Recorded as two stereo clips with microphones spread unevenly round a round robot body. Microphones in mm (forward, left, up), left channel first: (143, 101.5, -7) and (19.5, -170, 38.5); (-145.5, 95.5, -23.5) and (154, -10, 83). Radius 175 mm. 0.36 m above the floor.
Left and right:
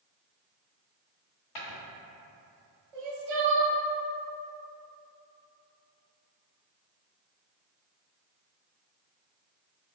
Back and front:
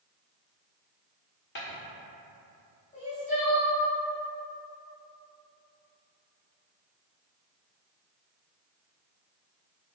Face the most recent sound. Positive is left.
turn(degrees=-130)